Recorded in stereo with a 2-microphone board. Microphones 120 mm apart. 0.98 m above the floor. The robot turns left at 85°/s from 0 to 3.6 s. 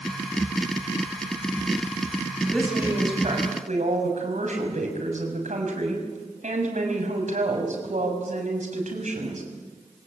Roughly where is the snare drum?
No snare drum in this recording.